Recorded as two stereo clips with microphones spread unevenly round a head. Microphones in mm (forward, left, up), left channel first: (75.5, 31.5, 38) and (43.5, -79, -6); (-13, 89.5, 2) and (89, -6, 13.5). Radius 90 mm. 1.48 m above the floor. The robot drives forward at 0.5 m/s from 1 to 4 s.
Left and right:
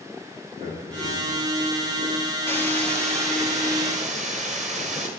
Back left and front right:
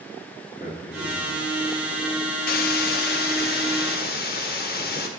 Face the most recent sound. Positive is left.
turn(degrees=170)